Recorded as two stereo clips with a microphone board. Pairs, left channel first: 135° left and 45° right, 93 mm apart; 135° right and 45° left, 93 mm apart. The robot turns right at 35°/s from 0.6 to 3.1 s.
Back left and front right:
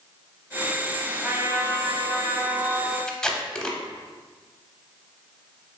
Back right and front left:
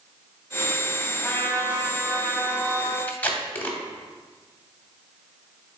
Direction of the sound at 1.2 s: 105° right.